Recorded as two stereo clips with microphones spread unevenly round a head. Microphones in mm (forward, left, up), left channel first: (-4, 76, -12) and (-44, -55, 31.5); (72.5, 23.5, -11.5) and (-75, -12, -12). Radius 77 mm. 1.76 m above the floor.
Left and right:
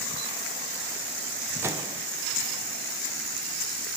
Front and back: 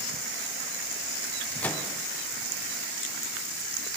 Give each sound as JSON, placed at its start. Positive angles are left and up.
{"t": 1.6, "sound": "a microwave", "azimuth_deg": -65, "distance_m": 0.5}